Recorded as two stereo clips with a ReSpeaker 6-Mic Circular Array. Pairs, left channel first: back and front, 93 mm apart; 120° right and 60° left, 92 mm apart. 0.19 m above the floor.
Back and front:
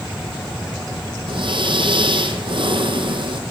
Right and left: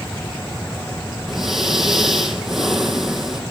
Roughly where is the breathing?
Ahead right.